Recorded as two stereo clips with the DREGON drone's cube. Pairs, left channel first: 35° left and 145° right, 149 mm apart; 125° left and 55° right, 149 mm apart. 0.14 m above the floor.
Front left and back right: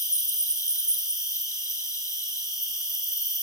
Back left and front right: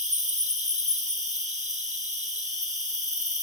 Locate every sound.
0.0 s an insect: 30° right, 1.3 m